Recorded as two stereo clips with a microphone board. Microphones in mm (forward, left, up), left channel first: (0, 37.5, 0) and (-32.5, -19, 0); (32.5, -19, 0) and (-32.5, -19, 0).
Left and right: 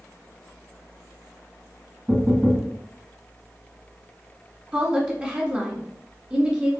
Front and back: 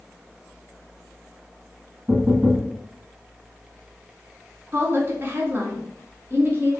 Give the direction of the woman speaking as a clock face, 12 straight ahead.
6 o'clock.